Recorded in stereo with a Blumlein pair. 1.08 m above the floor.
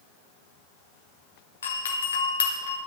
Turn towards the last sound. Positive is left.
turn(degrees=65)